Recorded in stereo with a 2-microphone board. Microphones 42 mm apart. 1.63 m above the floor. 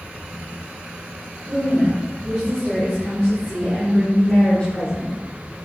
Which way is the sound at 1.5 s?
15° right (ahead or behind).